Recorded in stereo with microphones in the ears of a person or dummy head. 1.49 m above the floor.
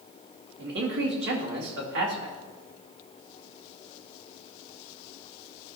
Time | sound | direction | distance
0.6 | a man speaking | 60° right (ahead or behind) | 2.0 m